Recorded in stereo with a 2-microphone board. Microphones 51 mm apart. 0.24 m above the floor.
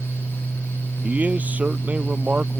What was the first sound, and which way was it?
A man speaking, 30° right (ahead or behind).